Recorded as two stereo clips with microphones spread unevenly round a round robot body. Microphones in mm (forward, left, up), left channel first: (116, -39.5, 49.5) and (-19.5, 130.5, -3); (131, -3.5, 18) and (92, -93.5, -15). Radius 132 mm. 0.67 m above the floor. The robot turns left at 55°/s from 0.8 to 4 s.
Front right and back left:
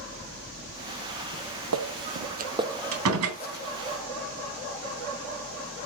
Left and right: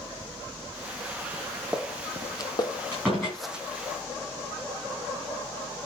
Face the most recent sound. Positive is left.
turn(degrees=105)